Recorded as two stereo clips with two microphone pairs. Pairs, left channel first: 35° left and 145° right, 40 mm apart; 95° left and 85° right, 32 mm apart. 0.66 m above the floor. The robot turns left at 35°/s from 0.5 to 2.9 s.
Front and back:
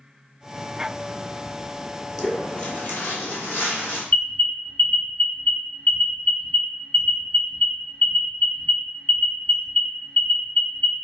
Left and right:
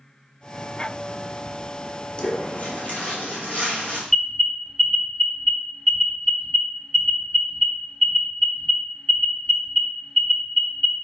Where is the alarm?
30° left, 0.9 m.